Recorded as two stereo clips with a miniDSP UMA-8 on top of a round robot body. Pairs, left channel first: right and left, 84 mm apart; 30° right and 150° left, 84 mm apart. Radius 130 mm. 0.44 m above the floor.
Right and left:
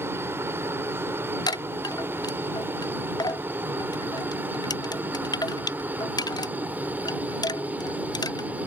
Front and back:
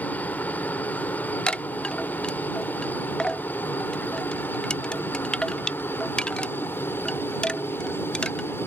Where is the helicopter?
35° left; by 8.7 s 25° left.